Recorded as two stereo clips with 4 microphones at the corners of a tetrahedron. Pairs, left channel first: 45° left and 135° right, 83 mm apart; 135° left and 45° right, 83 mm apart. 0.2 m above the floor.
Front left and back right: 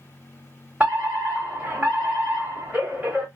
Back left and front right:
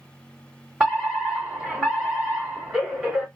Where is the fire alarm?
115° right, 1.9 m.